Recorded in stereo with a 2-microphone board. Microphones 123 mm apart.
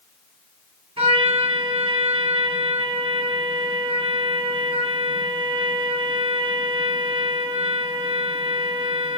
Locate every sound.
1.0 s a trumpet: 55° right (ahead or behind), 2.5 m